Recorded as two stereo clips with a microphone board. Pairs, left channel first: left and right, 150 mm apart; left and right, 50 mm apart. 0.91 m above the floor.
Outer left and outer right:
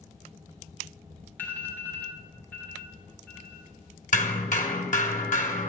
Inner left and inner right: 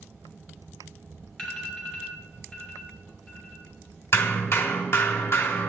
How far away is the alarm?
About 3 m.